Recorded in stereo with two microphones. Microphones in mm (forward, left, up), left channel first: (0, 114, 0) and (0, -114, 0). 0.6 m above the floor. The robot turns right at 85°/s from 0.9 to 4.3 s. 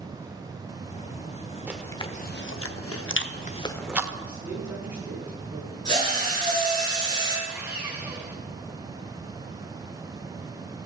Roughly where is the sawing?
Centre.